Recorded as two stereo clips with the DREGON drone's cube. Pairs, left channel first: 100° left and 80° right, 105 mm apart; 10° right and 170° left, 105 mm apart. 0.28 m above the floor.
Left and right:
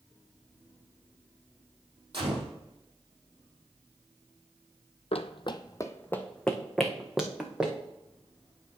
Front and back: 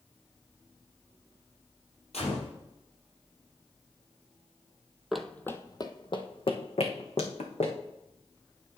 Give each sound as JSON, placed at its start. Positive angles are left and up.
{"t": 2.1, "sound": "a gunshot", "azimuth_deg": -35, "distance_m": 3.5}
{"t": 5.1, "sound": "running footsteps", "azimuth_deg": 85, "distance_m": 0.5}